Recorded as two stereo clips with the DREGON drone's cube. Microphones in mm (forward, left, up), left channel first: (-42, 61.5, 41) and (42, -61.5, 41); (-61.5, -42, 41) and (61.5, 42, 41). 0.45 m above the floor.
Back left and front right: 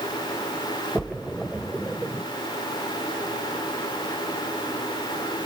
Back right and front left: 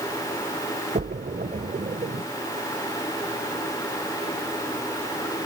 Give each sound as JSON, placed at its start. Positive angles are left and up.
{"t": 0.9, "sound": "a splash", "azimuth_deg": 35, "distance_m": 1.0}